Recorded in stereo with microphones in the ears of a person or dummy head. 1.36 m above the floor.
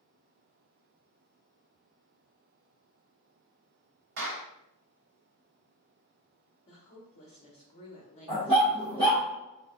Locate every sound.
4.2 s a clap: 60° right (ahead or behind), 0.9 m
6.7 s a woman speaking: 35° left (ahead or behind), 0.9 m
8.3 s a dog barking: 15° right (ahead or behind), 1.2 m